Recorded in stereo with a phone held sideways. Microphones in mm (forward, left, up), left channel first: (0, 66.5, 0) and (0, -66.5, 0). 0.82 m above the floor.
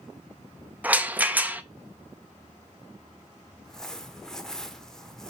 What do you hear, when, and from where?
0.8 s a rattle: 10° right (ahead or behind), 0.5 m
3.6 s crumpling: 5° left (ahead or behind), 0.8 m